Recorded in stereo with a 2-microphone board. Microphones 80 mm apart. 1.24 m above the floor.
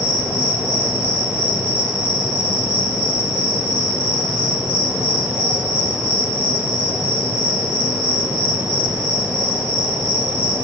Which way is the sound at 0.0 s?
20° right (ahead or behind).